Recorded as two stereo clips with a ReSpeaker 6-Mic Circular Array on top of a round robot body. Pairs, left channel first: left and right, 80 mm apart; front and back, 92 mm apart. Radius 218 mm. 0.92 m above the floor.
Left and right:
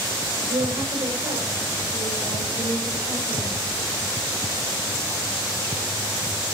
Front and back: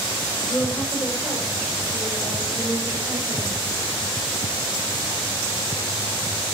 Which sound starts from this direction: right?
A woman speaking, at 0.5 s.